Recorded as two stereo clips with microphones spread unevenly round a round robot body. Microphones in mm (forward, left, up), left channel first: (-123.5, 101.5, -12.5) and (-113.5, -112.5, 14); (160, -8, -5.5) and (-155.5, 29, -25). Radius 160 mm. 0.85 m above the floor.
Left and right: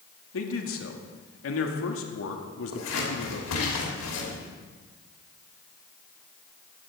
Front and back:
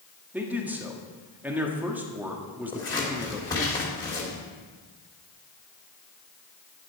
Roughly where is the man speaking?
Left.